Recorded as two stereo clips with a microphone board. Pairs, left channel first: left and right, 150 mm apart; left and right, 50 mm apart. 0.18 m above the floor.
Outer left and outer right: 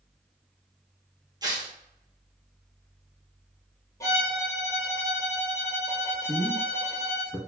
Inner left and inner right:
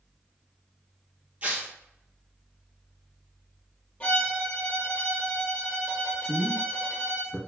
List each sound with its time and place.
1.4 s tearing paper: 30° right (ahead or behind), 1.1 m
4.0 s a violin: 20° left (ahead or behind), 1.4 m
6.2 s a man speaking: 10° right (ahead or behind), 1.0 m